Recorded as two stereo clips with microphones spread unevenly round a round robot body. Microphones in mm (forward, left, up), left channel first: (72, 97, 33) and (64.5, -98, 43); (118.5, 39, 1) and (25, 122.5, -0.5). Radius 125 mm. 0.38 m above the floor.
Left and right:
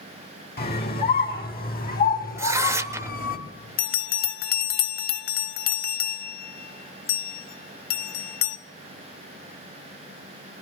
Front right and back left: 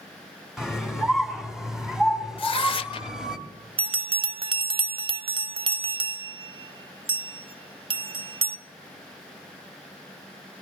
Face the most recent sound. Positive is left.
turn(degrees=105)